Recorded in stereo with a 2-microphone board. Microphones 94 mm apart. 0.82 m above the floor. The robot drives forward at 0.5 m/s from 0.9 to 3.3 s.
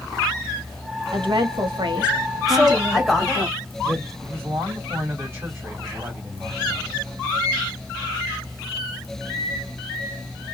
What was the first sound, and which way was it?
A woman speaking, 65° right (ahead or behind).